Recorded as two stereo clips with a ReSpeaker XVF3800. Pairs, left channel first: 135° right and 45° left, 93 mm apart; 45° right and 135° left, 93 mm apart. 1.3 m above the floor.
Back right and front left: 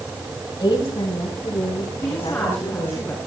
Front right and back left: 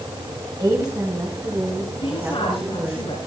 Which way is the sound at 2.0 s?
65° right.